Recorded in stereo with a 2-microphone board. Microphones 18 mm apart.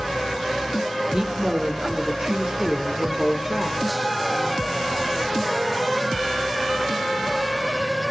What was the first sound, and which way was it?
A woman speaking, 25° right (ahead or behind).